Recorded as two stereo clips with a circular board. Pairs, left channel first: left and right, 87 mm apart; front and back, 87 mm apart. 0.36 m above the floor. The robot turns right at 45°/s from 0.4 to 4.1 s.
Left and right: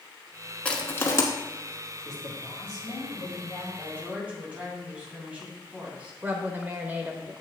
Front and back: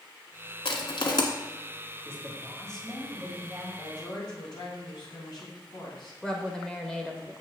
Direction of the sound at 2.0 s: 50° left.